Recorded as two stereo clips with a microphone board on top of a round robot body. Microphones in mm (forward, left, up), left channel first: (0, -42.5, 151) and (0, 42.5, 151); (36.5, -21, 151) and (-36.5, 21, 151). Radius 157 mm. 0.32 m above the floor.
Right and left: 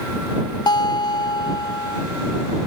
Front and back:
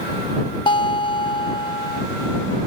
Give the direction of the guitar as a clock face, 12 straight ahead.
2 o'clock.